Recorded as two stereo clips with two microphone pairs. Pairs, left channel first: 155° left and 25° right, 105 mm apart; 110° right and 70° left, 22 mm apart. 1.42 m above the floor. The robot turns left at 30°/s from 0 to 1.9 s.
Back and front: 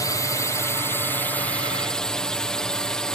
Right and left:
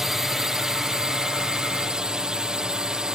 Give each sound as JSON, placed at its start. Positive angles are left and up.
{"t": 0.0, "sound": "a drone", "azimuth_deg": 130}